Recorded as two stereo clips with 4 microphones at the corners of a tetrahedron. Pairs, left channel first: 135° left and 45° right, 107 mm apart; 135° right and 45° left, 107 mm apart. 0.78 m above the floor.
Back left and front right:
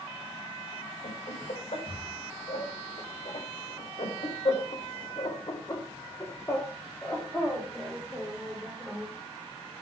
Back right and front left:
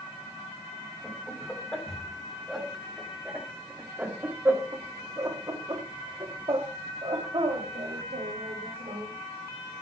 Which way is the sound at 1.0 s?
145° left.